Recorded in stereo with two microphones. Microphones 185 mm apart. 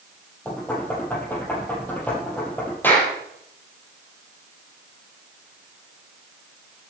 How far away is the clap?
About 5 m.